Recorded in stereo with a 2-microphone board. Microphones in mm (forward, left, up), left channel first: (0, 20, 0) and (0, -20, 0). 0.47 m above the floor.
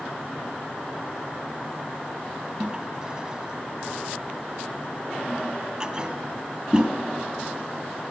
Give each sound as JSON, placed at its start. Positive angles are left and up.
{"t": 2.6, "sound": "a toilet flushing", "side_deg": -20, "distance_m": 2.5}